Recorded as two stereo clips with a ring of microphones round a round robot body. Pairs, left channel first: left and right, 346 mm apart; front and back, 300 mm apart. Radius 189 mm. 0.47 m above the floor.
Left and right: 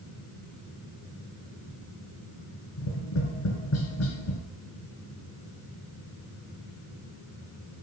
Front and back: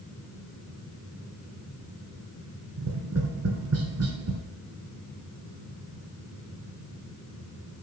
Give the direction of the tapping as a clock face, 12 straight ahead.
7 o'clock.